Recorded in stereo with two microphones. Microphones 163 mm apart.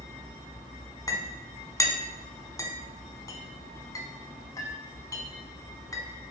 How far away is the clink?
About 1.1 m.